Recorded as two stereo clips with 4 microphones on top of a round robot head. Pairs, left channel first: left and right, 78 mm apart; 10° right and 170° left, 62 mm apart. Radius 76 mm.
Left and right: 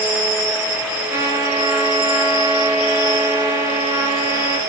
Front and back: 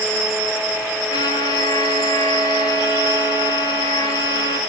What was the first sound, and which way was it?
A trumpet, 25° right.